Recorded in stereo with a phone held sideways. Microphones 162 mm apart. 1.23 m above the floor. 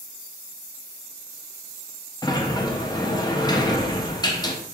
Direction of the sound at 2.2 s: 25° left (ahead or behind).